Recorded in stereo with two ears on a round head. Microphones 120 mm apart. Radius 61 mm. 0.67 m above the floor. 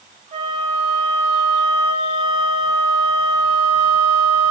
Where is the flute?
55° right (ahead or behind), 2 m.